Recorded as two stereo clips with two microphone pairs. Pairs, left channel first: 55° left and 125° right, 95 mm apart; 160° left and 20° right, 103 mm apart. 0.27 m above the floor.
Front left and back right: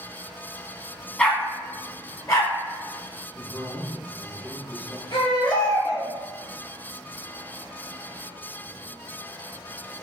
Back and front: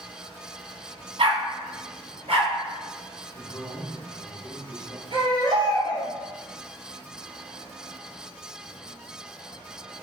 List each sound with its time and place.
1.2 s a dog barking: 25° right, 0.6 m; by 2.5 s straight ahead, 1.9 m
3.4 s a man speaking: 175° right, 1.1 m
5.1 s a baby crying: 15° left, 1.8 m